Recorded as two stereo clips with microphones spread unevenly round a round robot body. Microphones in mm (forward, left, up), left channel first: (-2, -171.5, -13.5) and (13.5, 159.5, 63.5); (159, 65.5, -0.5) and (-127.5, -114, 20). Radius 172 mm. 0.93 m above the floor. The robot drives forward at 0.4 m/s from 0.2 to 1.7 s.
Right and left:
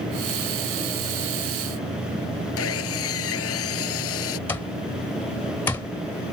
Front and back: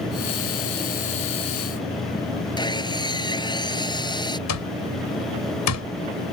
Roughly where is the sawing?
Ahead right.